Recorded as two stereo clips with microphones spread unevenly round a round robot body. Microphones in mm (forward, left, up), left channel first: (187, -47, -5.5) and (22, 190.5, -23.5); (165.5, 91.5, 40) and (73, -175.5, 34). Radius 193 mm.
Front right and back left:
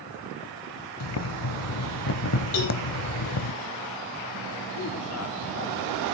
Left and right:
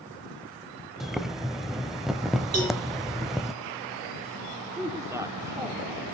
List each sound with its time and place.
1.0 s boiling: 20° right, 1.0 m
2.5 s a cowbell: 75° right, 8 m
4.8 s a man speaking: 30° right, 1.4 m